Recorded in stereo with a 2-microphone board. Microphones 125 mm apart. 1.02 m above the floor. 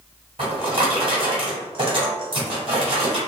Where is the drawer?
50° right (ahead or behind), 1.5 m.